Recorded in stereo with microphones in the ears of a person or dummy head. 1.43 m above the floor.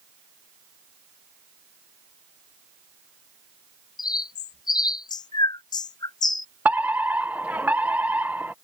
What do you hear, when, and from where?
4.0 s a bird: 20° left (ahead or behind)
6.7 s a fire alarm: 10° right (ahead or behind)